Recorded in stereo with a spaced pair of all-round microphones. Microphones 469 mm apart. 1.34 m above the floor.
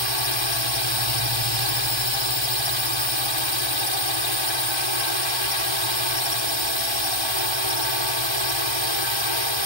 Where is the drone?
65° left (ahead or behind).